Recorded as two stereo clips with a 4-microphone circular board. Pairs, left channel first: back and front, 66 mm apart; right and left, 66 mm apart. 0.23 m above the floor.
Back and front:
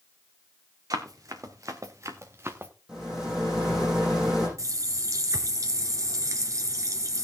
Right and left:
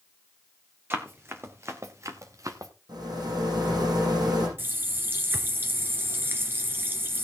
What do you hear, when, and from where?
0.9 s running footsteps: 35° left, 2.5 m; by 2.7 s 55° left, 1.6 m
2.9 s a rattle: 80° left, 8.5 m
4.6 s a running tap: 35° left, 2 m